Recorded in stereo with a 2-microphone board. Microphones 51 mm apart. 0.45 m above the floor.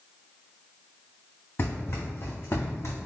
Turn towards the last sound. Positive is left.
turn(degrees=70)  # may be behind; listen again after turning